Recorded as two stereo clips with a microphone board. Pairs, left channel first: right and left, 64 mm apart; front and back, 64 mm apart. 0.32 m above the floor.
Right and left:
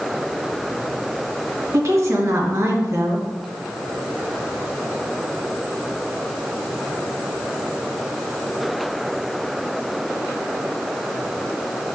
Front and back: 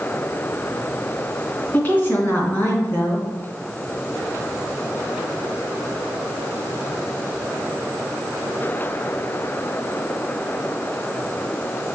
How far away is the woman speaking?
About 2.5 m.